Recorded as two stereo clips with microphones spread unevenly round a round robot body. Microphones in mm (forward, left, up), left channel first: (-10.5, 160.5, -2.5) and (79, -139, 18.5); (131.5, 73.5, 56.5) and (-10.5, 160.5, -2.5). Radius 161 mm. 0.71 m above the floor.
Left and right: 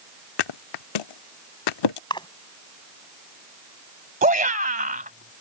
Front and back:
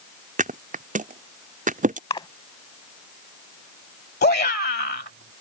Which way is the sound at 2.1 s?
30° left.